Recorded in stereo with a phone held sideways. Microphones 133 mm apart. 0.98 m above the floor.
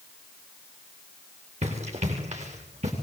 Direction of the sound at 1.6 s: 55° right (ahead or behind).